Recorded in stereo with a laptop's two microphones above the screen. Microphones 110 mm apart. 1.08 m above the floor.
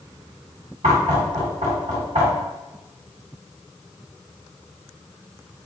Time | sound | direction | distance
0.8 | knocking | 75° right (ahead or behind) | 1.6 m